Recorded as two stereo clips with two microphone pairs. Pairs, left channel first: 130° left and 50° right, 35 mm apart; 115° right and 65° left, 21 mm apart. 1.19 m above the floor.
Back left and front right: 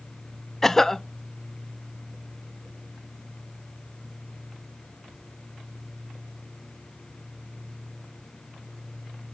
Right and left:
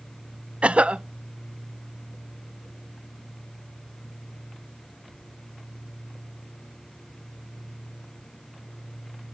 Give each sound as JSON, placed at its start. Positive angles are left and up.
{"t": 0.6, "sound": "a cough", "azimuth_deg": 50, "distance_m": 0.5}